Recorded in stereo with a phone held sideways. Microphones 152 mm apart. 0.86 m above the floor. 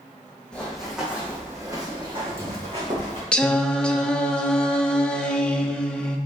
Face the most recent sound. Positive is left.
turn(degrees=5)  # may be behind; listen again after turning